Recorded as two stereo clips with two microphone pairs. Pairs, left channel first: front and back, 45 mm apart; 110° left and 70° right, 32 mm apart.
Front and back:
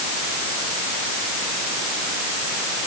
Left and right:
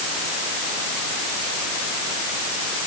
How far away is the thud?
I don't hear a thud.